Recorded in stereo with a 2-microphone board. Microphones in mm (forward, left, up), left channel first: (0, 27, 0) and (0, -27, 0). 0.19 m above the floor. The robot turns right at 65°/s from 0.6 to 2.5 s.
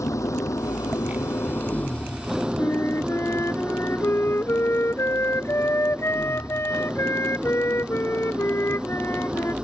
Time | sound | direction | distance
0.0 | an engine running | 75° left | ?
2.6 | a flute | 55° left (ahead or behind) | ?